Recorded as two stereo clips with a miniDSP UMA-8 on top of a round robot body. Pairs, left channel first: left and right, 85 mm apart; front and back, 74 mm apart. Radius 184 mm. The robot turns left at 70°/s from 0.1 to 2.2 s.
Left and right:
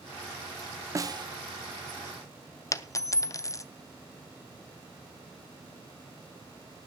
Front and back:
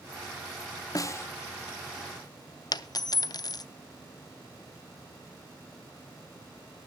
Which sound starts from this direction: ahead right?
A snare drum, at 0.9 s.